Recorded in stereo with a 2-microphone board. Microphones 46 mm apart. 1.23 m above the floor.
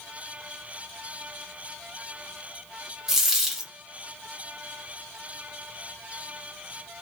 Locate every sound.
3.1 s a dropped coin: 10° right (ahead or behind), 1.0 m